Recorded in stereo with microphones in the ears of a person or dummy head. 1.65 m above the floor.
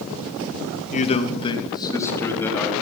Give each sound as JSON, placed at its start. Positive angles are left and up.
{"t": 0.9, "sound": "a man speaking", "side_deg": 40, "distance_m": 2.5}